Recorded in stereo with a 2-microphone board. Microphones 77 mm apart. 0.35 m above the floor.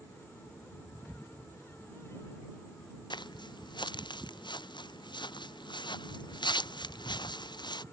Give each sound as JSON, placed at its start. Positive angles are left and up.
{"t": 3.1, "sound": "footsteps", "side_deg": 80}